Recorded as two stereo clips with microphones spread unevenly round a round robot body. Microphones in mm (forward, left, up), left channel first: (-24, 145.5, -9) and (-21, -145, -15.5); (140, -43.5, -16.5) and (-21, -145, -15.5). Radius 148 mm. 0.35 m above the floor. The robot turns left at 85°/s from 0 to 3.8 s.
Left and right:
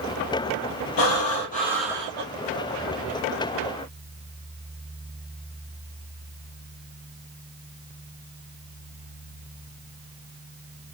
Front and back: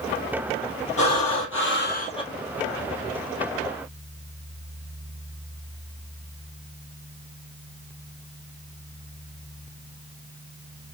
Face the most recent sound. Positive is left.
turn(degrees=-170)